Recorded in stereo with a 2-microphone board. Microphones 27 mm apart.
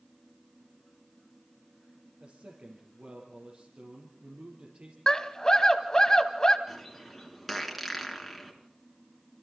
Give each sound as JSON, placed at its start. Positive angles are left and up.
{"t": 2.2, "sound": "a man speaking", "side_deg": -60, "distance_m": 4.5}
{"t": 5.1, "sound": "a scream", "side_deg": 25, "distance_m": 1.7}
{"t": 6.7, "sound": "a bird", "side_deg": 0, "distance_m": 3.5}